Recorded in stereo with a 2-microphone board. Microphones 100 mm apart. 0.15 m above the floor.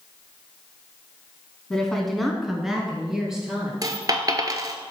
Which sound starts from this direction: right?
A dropped coin, at 3.8 s.